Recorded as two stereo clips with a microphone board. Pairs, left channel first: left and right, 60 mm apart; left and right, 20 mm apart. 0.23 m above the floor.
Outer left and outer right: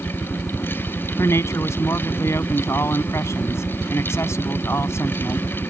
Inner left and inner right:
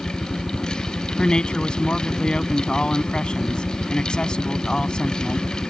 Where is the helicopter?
10° right (ahead or behind); by 5.7 s centre (ahead or behind).